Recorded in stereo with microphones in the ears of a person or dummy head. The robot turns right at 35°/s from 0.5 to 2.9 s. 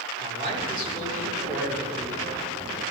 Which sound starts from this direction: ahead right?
A man speaking, at 0.2 s.